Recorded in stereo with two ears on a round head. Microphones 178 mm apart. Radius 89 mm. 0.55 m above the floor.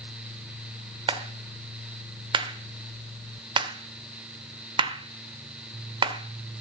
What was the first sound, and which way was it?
A clap, 25° right (ahead or behind).